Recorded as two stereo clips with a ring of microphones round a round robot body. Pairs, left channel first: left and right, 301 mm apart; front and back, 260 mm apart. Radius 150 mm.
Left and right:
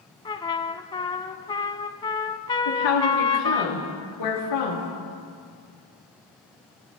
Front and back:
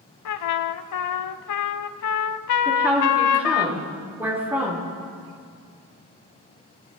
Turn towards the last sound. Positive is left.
turn(degrees=95)